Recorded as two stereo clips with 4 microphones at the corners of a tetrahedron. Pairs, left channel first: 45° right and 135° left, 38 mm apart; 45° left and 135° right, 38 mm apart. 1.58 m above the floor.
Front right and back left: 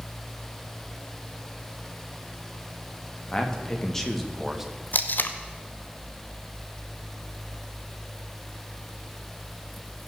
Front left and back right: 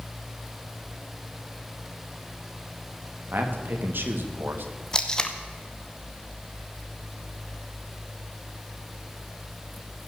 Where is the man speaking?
110° right, 2 m; by 4.7 s 145° right, 1.4 m.